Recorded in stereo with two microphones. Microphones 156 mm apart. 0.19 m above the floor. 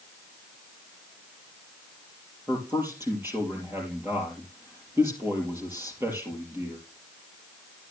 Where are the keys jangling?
I don't hear keys jangling.